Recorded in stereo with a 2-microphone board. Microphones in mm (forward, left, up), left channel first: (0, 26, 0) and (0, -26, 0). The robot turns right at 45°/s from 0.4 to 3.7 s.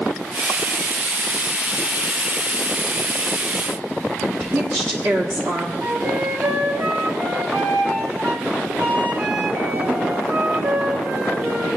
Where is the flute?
50° right (ahead or behind), 1.3 m.